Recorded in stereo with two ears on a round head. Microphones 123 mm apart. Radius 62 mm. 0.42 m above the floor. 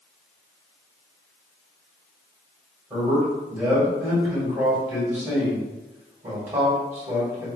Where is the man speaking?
15° right (ahead or behind), 2.0 m.